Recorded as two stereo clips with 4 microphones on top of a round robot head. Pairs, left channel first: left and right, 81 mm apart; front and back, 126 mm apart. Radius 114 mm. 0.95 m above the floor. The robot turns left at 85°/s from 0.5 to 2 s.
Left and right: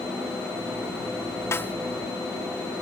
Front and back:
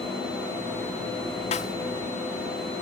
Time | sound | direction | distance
1.5 | a snare drum | 35° left | ?